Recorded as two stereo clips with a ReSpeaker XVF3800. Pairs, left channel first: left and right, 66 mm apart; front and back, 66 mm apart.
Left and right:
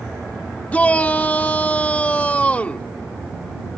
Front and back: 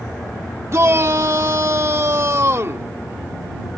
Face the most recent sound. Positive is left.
turn(degrees=150)